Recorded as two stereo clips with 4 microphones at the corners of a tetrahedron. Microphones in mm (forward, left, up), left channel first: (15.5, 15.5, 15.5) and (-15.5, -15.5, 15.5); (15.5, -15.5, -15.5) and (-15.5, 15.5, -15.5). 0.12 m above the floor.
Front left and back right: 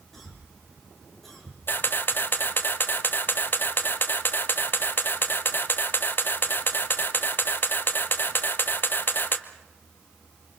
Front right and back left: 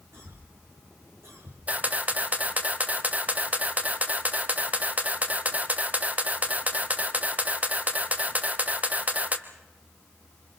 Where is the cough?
130° left, 8.5 m.